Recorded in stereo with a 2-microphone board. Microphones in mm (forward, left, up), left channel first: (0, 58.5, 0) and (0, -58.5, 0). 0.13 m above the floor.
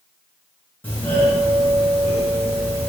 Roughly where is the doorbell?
Centre.